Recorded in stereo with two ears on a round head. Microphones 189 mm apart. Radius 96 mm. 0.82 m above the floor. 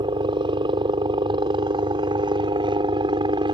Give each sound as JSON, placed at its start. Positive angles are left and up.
{"t": 0.0, "sound": "a helicopter", "side_deg": -20}